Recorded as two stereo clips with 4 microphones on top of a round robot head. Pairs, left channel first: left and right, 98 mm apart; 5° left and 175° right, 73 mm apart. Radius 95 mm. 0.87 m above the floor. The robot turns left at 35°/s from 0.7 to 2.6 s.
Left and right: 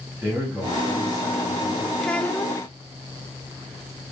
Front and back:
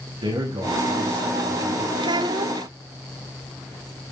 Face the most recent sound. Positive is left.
turn(degrees=155)